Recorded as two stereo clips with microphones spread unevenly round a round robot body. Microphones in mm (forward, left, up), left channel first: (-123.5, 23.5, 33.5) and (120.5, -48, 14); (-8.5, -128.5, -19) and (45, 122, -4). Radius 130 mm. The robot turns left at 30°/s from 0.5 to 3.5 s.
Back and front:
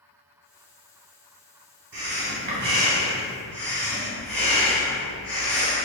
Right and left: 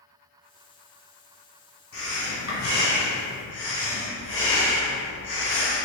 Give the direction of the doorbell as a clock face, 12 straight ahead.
No doorbell in this recording.